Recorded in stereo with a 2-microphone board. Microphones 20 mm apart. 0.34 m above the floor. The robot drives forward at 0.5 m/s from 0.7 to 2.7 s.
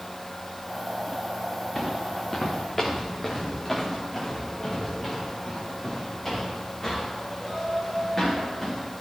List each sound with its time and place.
1.8 s footsteps: 10° left (ahead or behind), 1.9 m